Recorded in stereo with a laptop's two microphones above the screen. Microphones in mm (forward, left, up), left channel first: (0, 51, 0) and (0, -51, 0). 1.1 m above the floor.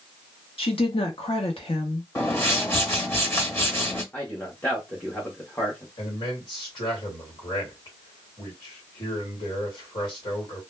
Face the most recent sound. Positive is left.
turn(degrees=60)  # may be behind; listen again after turning